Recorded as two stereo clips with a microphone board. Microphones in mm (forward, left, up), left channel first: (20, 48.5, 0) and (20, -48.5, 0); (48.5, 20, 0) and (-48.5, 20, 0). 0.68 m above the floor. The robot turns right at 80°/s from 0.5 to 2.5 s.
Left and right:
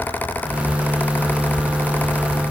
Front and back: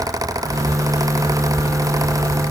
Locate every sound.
Only background noise.